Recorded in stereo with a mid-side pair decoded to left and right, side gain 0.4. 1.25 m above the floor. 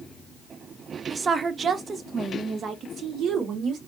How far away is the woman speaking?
About 0.6 m.